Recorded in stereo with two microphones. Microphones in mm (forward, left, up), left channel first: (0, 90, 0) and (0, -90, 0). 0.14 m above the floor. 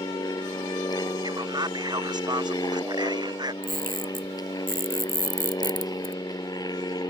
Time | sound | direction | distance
0.0 | an aircraft | 20° left (ahead or behind) | ?
1.2 | a man speaking | 20° right (ahead or behind) | ?
3.6 | a camera shutter | 50° right (ahead or behind) | ?